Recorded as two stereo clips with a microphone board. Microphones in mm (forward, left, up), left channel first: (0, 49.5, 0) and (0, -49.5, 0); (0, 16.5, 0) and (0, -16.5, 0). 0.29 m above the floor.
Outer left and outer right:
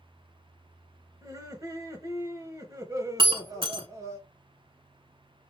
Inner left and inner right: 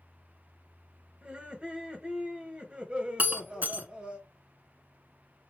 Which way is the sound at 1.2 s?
35° right (ahead or behind).